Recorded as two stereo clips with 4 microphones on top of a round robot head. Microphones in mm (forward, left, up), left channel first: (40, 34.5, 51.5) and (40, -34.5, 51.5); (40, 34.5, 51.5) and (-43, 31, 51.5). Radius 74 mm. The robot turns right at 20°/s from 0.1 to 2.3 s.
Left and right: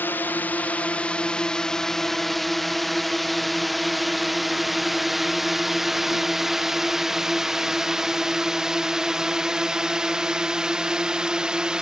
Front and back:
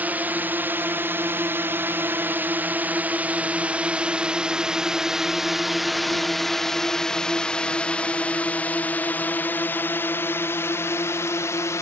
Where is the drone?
125° left; by 11.8 s 20° right.